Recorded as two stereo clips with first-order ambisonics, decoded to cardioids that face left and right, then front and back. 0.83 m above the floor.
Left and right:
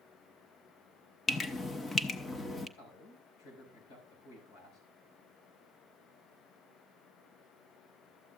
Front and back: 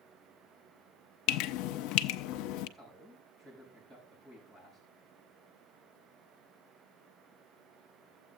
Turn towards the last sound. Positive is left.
turn(degrees=110)